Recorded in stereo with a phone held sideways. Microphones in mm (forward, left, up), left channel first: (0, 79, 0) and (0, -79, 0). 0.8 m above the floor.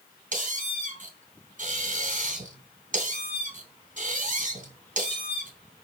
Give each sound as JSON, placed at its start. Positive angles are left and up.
{"t": 0.3, "sound": "a squeak", "side_deg": -55, "distance_m": 3.0}